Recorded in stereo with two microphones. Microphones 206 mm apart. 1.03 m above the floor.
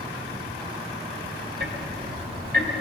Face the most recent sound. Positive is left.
turn(degrees=-55)  # may be behind; listen again after turning